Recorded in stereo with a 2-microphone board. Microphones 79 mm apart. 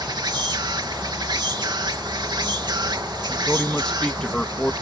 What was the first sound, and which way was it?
An insect, 65° right (ahead or behind).